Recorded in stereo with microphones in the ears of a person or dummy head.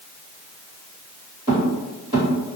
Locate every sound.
1.5 s footsteps: 15° right (ahead or behind), 1.7 m